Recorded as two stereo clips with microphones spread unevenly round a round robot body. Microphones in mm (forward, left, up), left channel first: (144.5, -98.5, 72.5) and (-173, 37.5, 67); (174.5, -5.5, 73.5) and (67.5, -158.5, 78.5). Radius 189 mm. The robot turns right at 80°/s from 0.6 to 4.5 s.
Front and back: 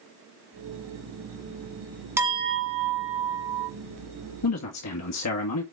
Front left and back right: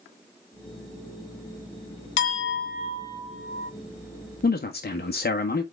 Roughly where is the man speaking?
Ahead.